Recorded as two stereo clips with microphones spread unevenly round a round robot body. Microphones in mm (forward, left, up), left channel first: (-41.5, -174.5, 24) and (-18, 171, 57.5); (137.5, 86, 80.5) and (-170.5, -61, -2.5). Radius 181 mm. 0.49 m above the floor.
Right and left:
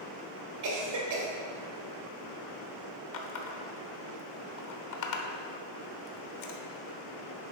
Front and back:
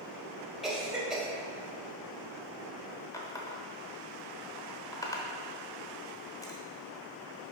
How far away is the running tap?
About 0.9 m.